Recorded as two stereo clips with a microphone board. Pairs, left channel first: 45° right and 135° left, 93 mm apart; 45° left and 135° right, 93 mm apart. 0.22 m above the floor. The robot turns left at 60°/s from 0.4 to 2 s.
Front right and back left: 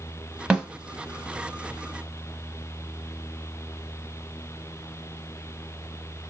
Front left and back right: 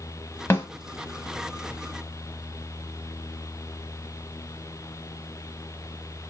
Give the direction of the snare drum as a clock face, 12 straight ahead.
10 o'clock.